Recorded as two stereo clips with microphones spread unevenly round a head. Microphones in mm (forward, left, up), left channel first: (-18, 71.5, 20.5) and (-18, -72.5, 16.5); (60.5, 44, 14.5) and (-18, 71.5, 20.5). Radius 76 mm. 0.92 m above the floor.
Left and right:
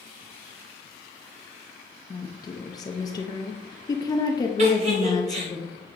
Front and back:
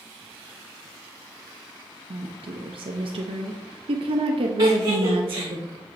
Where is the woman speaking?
155° left, 0.6 m.